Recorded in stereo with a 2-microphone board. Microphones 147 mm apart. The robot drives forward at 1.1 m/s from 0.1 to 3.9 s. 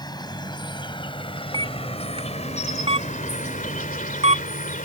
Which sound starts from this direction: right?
A camera shutter, at 1.5 s.